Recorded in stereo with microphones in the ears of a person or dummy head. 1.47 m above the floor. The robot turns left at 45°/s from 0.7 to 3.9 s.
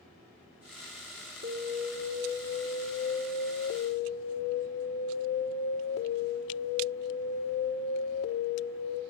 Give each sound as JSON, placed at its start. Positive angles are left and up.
{"t": 1.4, "sound": "an alarm", "azimuth_deg": -110, "distance_m": 4.0}